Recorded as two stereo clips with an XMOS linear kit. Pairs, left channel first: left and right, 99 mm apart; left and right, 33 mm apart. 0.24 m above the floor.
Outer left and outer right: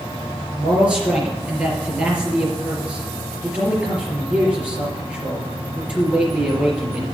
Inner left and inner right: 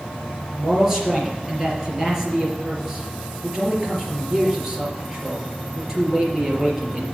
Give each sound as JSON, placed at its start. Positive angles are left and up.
{"t": 0.6, "sound": "a man speaking", "side_deg": -10, "distance_m": 4.0}